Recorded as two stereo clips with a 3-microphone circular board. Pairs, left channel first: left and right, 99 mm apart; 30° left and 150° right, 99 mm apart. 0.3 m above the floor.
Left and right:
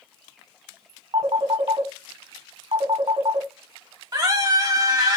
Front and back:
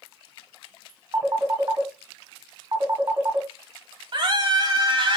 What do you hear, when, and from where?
1.1 s a phone ringing: 105° right, 1.1 m
4.1 s a scream: 130° right, 1.4 m